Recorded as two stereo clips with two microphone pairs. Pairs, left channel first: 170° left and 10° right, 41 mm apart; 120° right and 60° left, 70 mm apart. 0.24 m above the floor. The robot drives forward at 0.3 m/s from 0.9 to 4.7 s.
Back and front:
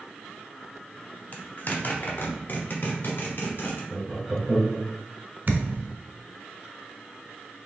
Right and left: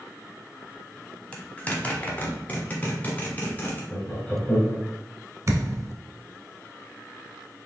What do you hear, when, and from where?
1.3 s a zipper: 175° left, 0.7 m; by 3.8 s straight behind, 1.3 m
3.9 s laughter: 70° right, 1.0 m; by 4.8 s 110° right, 1.0 m
5.5 s a thud: 20° left, 0.6 m